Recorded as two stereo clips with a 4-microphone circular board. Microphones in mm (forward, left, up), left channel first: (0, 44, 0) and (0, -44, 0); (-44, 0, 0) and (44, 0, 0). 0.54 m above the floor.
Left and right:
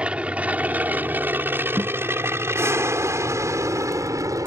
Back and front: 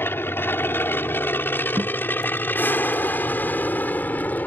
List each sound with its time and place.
0.0 s an aircraft: 155° right; by 4.5 s 120° right
1.8 s a guitar: 40° right